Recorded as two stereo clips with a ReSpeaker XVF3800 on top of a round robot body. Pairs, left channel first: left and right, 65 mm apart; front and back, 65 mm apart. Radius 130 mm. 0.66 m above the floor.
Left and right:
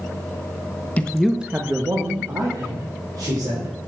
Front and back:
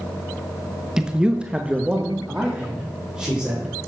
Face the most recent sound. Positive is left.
turn(degrees=-105)